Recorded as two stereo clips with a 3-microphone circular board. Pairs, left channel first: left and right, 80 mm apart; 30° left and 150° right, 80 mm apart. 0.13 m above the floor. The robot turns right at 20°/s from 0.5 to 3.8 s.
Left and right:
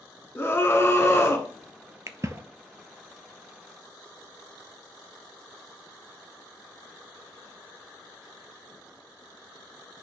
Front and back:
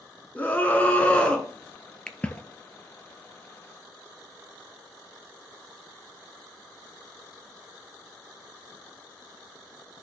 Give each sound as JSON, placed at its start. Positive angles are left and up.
{"t": 0.3, "sound": "a scream", "azimuth_deg": 75, "distance_m": 1.4}
{"t": 2.1, "sound": "a splash", "azimuth_deg": -45, "distance_m": 0.6}